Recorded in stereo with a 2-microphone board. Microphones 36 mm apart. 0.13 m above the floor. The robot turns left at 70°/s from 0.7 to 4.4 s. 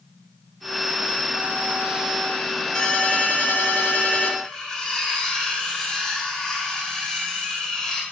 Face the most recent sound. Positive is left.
turn(degrees=25)  # may be behind; listen again after turning